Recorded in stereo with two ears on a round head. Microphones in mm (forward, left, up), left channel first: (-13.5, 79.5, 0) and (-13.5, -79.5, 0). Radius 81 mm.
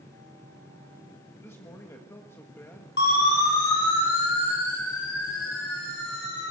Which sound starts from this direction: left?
A siren, at 3.0 s.